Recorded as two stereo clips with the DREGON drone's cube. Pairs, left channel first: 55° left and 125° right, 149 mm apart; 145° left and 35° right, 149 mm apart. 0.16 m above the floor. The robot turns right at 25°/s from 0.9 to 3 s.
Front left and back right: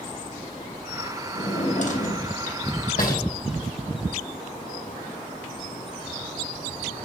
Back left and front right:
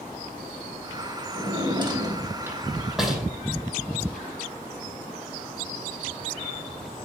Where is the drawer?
10° left, 2.5 m; by 3.2 s 55° left, 2.5 m.